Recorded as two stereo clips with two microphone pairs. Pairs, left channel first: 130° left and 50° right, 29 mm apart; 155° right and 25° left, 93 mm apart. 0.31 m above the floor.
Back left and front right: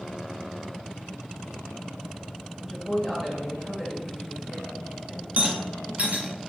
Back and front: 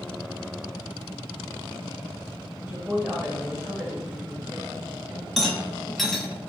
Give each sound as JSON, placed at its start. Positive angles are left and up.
{"t": 2.6, "sound": "a woman speaking", "azimuth_deg": 20, "distance_m": 1.5}
{"t": 5.4, "sound": "a rattle", "azimuth_deg": -65, "distance_m": 1.1}